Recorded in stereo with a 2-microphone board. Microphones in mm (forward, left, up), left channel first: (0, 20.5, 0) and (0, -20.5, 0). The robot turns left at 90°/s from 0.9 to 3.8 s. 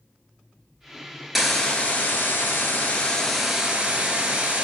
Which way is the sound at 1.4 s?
175° right.